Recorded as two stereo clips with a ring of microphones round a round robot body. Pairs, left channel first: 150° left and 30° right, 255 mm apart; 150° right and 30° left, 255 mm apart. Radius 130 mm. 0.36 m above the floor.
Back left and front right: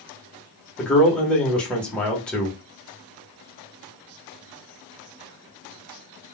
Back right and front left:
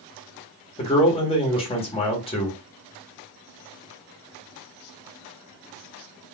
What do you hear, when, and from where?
0.8 s a man speaking: 130° right, 1.3 m